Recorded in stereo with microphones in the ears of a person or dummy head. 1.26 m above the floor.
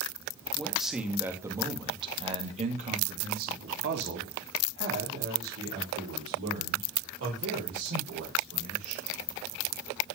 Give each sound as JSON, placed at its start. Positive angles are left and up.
{"t": 0.6, "sound": "a man speaking", "side_deg": 0, "distance_m": 2.5}